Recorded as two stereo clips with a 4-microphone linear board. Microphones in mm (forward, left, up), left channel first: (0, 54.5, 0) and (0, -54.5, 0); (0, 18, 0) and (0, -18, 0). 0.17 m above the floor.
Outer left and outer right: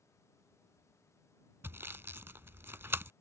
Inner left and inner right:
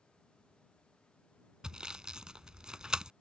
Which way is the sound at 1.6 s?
20° right (ahead or behind).